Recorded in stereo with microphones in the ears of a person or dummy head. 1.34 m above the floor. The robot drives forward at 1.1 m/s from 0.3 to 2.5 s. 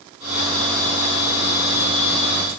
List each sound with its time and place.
Only background noise.